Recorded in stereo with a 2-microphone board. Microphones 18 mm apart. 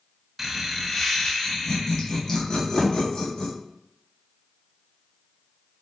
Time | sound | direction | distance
0.4 | laughter | 15° right (ahead or behind) | 1.1 m
2.8 | a thud | 25° left (ahead or behind) | 2.5 m